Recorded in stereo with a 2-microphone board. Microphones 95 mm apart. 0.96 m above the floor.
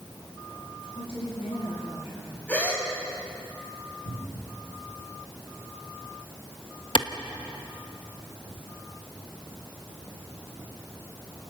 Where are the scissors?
No scissors in this recording.